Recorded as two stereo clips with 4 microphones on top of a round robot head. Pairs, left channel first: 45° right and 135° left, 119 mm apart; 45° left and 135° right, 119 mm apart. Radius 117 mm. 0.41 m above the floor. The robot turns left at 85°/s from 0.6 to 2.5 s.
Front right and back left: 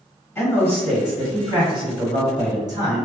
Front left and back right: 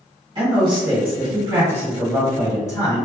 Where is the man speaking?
105° right, 2.0 m; by 3.0 s 95° left, 2.0 m.